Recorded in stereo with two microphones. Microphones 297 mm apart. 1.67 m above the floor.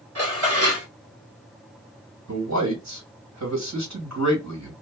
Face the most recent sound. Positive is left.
turn(degrees=-65)  # may be behind; listen again after turning